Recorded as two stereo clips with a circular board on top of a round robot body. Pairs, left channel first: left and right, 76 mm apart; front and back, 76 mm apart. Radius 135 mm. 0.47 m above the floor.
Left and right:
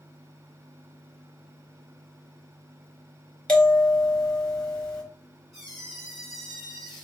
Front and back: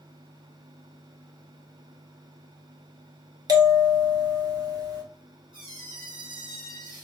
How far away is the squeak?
About 2.0 m.